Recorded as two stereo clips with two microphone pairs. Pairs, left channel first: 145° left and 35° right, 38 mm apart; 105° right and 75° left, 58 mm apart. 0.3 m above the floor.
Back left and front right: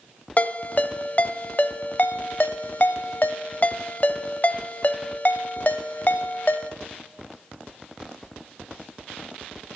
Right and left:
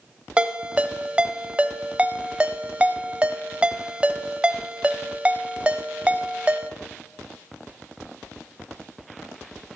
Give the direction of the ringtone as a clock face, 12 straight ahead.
7 o'clock.